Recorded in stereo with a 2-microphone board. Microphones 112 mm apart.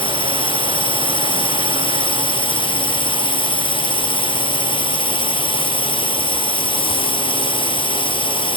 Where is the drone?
50° left (ahead or behind).